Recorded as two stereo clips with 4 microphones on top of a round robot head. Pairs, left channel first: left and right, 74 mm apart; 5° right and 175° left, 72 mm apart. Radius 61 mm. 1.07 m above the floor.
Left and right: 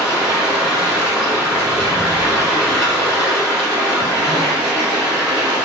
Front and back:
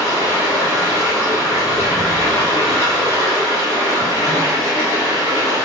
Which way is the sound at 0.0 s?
15° right.